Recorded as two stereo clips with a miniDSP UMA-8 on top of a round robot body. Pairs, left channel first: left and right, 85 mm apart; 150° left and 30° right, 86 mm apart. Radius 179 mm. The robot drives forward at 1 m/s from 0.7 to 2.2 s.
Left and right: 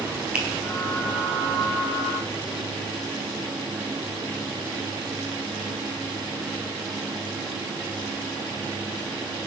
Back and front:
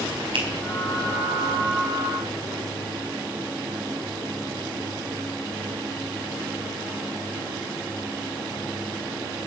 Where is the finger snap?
15° right, 4 m.